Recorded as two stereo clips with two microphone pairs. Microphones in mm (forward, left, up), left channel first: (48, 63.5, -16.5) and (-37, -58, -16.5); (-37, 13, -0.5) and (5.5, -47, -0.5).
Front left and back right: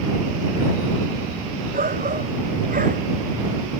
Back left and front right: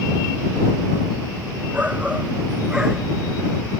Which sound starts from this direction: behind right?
A shout, at 1.7 s.